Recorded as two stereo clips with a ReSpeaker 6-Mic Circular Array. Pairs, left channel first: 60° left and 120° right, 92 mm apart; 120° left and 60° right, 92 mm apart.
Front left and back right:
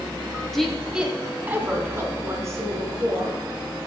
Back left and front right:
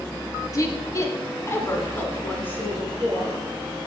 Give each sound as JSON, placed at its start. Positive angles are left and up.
{"t": 0.5, "sound": "a woman speaking", "azimuth_deg": 145, "distance_m": 1.2}